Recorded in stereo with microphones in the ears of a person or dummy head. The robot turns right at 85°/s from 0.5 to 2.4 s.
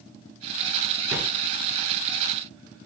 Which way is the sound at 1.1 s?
20° right (ahead or behind).